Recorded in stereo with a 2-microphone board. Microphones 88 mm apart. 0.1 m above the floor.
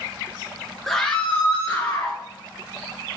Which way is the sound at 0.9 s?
5° left (ahead or behind).